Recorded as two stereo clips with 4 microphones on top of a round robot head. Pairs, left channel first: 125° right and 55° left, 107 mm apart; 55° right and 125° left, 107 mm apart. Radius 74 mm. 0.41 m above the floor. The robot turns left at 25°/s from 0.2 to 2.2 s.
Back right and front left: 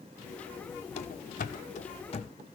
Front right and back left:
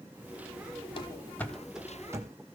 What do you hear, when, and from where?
1.0 s running footsteps: 100° right, 0.7 m; by 2.4 s 170° right, 1.3 m